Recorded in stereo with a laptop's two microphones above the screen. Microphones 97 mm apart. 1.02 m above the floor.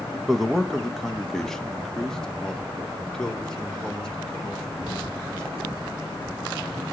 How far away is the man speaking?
About 1.1 m.